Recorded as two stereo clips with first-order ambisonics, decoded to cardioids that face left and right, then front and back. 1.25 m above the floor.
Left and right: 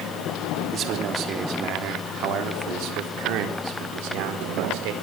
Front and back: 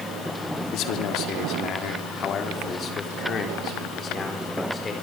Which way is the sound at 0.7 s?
35° right.